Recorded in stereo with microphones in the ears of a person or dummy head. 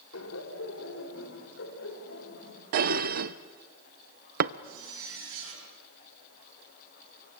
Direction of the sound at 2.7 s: 45° right (ahead or behind).